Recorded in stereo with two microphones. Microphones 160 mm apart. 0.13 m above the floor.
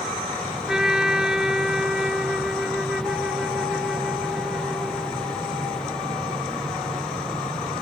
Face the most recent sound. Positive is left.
turn(degrees=-5)  # may be behind; listen again after turning